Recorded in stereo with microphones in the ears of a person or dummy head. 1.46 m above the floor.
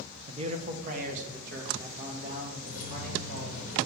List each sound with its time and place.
0.3 s a man speaking: 30° right (ahead or behind), 0.8 m; by 3.6 s 50° right (ahead or behind), 3.5 m
2.6 s keys jangling: 35° left (ahead or behind), 1.1 m